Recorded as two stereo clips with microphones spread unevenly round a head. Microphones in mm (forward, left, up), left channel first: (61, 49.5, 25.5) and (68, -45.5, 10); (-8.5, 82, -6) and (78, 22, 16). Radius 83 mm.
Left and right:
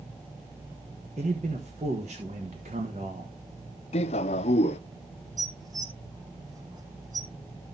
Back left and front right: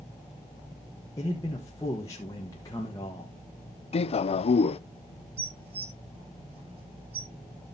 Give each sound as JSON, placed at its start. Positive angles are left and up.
{"t": 1.2, "sound": "a man speaking", "azimuth_deg": -140, "distance_m": 1.2}
{"t": 3.9, "sound": "a man speaking", "azimuth_deg": 110, "distance_m": 0.5}
{"t": 5.4, "sound": "dishes clattering", "azimuth_deg": -35, "distance_m": 1.4}